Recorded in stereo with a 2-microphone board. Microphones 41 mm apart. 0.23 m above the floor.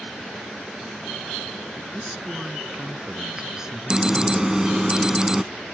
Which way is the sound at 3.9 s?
15° right (ahead or behind).